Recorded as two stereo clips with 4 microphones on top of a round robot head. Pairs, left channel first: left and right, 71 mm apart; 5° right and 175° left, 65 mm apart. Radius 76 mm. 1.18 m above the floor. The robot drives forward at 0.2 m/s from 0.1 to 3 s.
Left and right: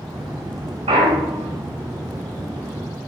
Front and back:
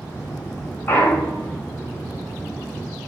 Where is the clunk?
75° right, 0.5 m; by 1.6 s 90° right, 0.5 m.